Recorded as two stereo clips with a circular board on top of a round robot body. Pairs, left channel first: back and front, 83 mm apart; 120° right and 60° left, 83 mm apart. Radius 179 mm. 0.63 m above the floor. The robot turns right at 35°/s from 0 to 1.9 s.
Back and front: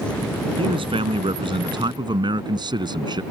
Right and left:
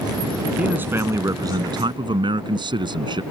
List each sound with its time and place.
0.6 s a man speaking: 15° right; by 3.2 s 30° left